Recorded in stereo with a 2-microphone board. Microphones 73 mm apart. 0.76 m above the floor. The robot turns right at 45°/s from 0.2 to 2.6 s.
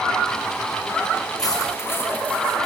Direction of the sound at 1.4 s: 120° left.